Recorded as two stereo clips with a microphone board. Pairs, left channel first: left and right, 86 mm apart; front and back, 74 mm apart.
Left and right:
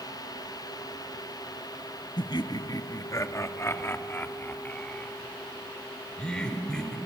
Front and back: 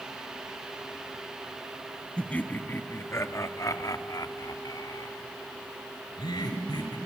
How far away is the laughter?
About 1.3 m.